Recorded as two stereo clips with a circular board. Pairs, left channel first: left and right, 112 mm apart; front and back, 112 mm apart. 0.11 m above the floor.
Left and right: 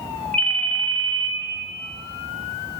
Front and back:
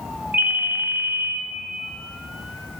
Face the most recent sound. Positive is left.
turn(degrees=145)